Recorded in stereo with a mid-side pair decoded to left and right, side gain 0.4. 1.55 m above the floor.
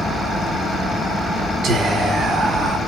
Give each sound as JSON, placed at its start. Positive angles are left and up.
{"t": 1.6, "sound": "whispering", "azimuth_deg": -70, "distance_m": 1.1}